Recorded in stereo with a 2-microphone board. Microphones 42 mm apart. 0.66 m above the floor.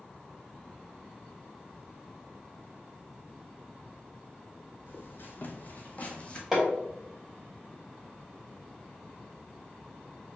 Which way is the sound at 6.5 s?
10° right (ahead or behind).